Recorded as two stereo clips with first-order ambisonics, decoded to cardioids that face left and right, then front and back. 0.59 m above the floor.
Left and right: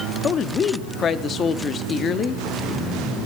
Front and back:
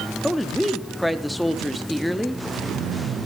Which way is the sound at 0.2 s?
90° left.